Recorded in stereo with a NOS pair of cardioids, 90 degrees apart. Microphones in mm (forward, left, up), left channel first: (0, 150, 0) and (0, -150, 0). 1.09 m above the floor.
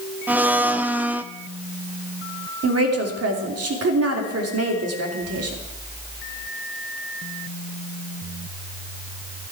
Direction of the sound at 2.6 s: 55° right.